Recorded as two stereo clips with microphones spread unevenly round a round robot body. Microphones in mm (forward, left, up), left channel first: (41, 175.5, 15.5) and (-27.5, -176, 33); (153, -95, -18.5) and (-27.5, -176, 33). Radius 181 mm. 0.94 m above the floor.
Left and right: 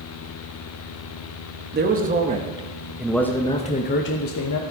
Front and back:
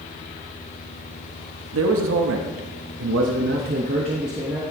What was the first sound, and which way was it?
A man speaking, 165° right.